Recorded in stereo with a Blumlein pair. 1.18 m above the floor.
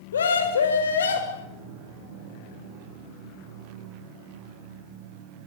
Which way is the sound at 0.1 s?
65° left.